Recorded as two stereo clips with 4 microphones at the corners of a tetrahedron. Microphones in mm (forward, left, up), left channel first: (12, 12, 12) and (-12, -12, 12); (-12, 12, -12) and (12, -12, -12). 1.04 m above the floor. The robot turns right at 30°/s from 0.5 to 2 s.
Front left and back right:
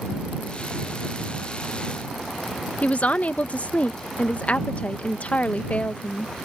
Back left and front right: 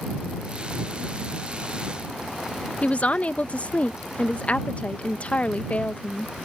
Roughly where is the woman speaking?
Left.